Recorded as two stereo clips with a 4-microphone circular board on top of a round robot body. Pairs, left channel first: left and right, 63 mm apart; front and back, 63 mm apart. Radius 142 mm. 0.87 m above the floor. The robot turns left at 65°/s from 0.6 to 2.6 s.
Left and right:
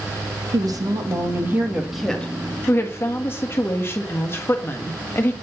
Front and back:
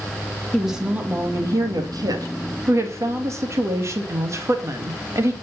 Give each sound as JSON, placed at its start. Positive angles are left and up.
{"t": 0.5, "sound": "a woman speaking", "azimuth_deg": -90, "distance_m": 2.0}